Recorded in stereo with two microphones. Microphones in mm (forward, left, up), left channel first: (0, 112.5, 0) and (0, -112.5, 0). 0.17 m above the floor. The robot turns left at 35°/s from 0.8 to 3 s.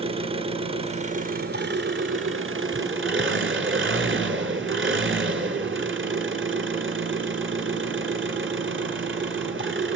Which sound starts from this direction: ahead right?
An engine running, at 0.0 s.